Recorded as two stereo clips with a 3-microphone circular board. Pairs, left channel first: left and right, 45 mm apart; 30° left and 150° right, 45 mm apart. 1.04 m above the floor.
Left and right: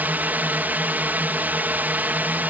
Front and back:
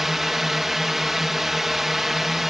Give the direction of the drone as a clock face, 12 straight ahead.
2 o'clock.